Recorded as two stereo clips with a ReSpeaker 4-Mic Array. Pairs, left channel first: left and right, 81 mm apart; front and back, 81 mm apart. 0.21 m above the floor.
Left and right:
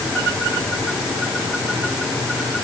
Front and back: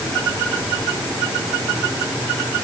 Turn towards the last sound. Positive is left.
No sound to turn to.